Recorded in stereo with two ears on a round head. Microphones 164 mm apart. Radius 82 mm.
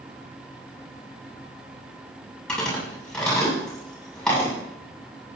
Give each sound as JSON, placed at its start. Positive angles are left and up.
{"t": 2.5, "sound": "chewing", "side_deg": 5, "distance_m": 7.5}